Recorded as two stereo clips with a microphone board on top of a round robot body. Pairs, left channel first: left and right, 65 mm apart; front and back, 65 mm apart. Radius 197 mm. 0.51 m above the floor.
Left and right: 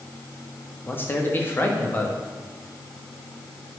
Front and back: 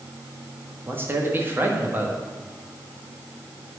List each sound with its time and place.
0.9 s a man speaking: 135° left, 1.7 m